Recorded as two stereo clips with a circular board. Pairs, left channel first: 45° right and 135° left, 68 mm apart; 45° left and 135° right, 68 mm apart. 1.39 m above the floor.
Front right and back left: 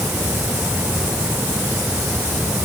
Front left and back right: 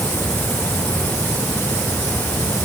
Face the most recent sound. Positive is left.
No sound to turn to.